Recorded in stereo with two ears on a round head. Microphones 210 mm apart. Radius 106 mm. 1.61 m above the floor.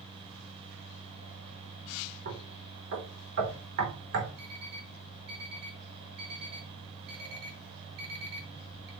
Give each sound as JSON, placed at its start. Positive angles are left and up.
{"t": 2.2, "sound": "knocking", "side_deg": -45, "distance_m": 4.5}
{"t": 4.4, "sound": "an alarm clock", "side_deg": -45, "distance_m": 4.5}